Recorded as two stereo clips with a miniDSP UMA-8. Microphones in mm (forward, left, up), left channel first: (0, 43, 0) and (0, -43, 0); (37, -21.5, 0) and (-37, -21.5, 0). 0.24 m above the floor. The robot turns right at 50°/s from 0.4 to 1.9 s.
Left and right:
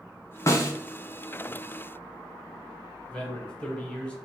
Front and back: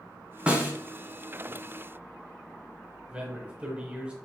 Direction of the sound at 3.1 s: 140° left.